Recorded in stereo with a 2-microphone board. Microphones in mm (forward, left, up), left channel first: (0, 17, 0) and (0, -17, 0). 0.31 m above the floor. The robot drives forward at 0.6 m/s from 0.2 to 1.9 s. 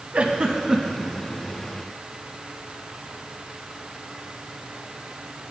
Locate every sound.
0.1 s a giggle: 35° right (ahead or behind), 0.6 m; by 1.1 s 20° right (ahead or behind), 1.0 m